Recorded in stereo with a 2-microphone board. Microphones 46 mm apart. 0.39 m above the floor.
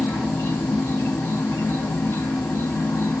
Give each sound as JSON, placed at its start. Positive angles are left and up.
{"t": 0.0, "sound": "an insect", "side_deg": 60, "distance_m": 0.9}